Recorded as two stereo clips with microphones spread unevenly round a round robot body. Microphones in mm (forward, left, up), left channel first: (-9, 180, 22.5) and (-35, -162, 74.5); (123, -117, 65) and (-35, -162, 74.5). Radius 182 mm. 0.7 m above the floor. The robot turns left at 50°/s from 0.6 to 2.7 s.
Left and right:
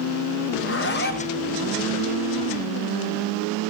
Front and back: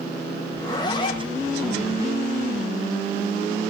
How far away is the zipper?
About 1.4 m.